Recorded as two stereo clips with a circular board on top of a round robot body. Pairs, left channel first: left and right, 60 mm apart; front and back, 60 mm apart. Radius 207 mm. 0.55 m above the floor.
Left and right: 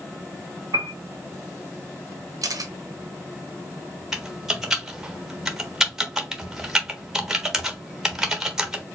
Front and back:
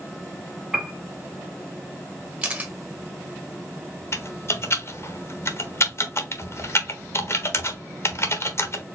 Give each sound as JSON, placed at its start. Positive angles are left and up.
{"t": 0.7, "sound": "a piano", "azimuth_deg": -110, "distance_m": 0.6}
{"t": 2.4, "sound": "a camera shutter", "azimuth_deg": -115, "distance_m": 0.8}
{"t": 4.1, "sound": "typing on a keyboard", "azimuth_deg": -10, "distance_m": 1.3}